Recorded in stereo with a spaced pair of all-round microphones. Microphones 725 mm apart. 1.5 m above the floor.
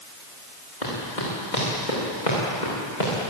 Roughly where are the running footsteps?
Left.